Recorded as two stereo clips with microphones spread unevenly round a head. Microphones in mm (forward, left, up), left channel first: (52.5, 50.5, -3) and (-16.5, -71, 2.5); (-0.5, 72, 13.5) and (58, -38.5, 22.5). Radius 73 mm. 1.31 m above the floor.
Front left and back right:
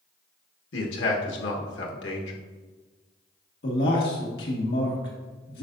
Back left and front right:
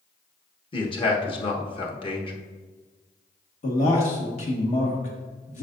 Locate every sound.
0.7 s a man speaking: 65° left, 1.4 m
3.6 s a man speaking: 90° left, 1.6 m